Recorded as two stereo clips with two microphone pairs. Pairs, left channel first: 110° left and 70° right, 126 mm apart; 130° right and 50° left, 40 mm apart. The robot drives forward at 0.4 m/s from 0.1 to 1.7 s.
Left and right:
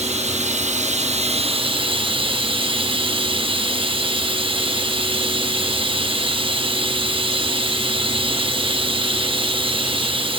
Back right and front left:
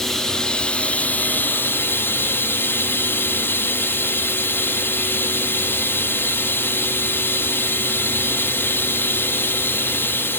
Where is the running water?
45° right, 0.7 m; by 10.4 s 105° right, 0.6 m.